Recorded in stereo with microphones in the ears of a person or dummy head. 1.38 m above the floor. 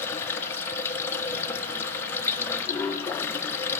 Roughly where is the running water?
Centre.